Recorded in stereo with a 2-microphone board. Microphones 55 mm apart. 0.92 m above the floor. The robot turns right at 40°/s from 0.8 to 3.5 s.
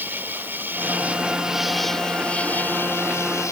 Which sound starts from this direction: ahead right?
An insect, at 0.0 s.